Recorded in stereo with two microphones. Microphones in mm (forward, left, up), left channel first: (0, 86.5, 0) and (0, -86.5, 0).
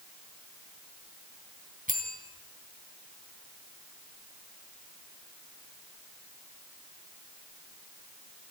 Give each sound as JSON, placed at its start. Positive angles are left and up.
{"t": 1.9, "sound": "a bell", "side_deg": -50, "distance_m": 2.5}